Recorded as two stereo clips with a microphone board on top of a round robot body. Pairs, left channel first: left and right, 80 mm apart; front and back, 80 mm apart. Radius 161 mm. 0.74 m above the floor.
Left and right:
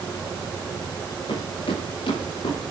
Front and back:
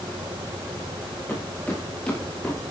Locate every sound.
1.3 s footsteps: 70° left, 8 m; by 2.6 s 80° left, 8 m